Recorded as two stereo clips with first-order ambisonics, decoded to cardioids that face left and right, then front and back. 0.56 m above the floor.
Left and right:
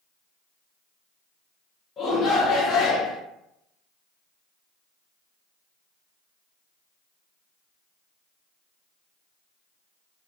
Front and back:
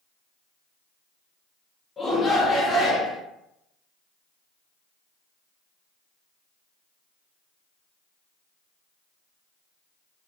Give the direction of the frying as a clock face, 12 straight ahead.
No frying in this recording.